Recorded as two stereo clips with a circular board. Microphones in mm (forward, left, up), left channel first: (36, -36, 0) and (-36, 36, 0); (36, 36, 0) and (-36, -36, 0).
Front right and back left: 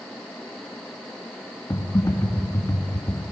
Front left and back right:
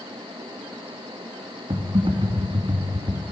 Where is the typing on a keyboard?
105° right, 2 m.